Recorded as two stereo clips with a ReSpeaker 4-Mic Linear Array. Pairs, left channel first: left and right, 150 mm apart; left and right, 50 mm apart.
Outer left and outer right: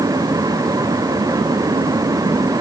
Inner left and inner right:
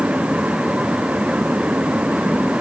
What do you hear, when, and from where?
Only background noise.